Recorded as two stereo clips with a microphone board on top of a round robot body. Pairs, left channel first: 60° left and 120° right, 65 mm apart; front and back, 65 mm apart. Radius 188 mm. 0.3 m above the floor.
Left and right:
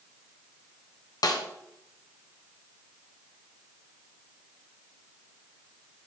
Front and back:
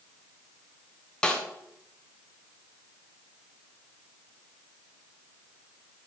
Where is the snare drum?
80° left, 1.0 m.